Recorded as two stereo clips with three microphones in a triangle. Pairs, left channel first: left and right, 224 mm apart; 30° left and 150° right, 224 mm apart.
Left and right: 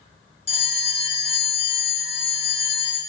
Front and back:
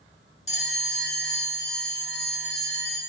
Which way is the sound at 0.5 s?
55° left.